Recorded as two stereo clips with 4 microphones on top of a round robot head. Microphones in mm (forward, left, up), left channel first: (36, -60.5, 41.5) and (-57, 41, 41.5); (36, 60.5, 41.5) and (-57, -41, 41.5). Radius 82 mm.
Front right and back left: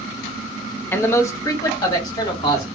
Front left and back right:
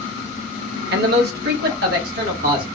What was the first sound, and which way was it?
A man speaking, 125° right.